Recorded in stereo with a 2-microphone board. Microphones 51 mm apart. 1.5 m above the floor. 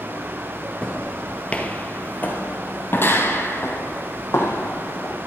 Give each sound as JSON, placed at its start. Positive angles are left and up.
{"t": 0.8, "sound": "footsteps", "side_deg": 10, "distance_m": 1.6}